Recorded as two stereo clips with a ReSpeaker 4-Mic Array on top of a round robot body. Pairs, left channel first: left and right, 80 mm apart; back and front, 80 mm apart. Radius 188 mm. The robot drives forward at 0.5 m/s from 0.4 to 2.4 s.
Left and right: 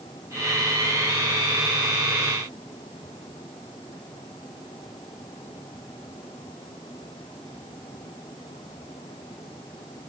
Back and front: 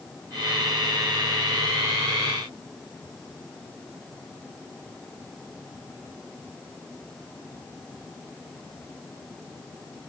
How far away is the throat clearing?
No throat clearing in this recording.